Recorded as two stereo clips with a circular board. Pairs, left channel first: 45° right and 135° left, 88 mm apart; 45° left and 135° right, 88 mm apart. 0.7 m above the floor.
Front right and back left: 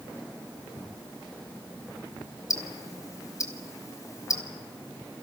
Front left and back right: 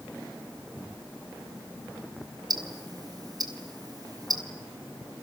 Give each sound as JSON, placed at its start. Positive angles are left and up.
{"t": 2.5, "sound": "ticking", "azimuth_deg": -95, "distance_m": 3.0}